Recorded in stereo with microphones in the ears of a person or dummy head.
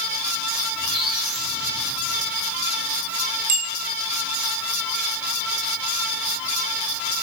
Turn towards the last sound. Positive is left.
turn(degrees=-50)  # may be behind; listen again after turning